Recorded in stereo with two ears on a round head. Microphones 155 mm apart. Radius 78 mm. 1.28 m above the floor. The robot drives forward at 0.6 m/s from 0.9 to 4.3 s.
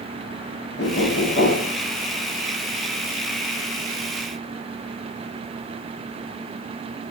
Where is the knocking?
70° left (ahead or behind), 0.8 m; by 1.8 s 45° left (ahead or behind), 1.1 m.